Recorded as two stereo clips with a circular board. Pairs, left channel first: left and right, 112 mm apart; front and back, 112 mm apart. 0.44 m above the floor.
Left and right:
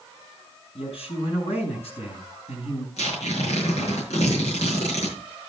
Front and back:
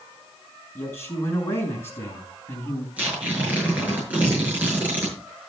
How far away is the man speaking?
About 5.5 m.